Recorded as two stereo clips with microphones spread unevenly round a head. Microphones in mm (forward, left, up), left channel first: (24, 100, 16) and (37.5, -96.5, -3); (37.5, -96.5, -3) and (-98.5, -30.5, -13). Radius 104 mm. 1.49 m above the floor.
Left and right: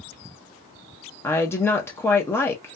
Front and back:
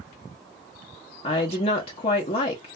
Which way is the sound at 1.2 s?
20° left.